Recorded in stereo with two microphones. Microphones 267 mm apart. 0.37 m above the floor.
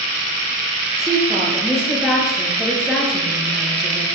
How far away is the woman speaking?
About 9 m.